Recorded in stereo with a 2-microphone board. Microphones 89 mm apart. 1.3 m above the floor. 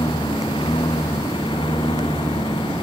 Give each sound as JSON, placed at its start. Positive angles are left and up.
{"t": 0.0, "sound": "a lawn mower", "side_deg": 70}